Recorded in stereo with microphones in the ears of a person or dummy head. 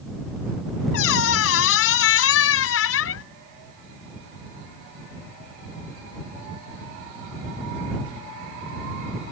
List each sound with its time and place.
0.9 s a squeak: 75° left (ahead or behind)